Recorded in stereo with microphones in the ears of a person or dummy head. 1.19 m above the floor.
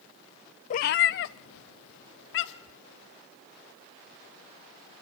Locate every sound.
0.7 s a cat meowing: 35° left (ahead or behind), 0.5 m; by 2.8 s 60° left (ahead or behind), 1.8 m